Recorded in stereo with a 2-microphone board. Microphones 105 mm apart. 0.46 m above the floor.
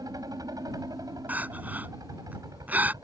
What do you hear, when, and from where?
0.0 s a helicopter: 35° right (ahead or behind)
1.3 s crying: 15° right (ahead or behind)